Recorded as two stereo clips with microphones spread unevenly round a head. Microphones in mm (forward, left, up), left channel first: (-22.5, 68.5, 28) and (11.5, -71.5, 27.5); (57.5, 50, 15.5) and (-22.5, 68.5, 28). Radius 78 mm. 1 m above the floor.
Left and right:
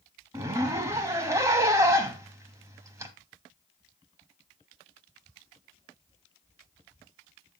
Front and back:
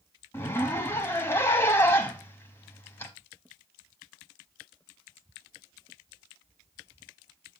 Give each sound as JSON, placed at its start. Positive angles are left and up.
{"t": 0.3, "sound": "a zipper", "azimuth_deg": -50, "distance_m": 0.8}